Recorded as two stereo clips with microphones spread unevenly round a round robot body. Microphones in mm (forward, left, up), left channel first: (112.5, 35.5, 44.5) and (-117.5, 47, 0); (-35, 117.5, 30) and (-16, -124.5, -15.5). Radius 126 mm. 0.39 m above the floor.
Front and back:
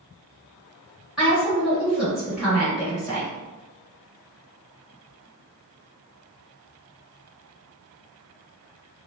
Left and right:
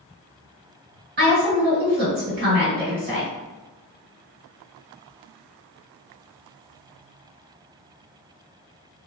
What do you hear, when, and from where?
1.2 s a woman speaking: 105° right, 1.6 m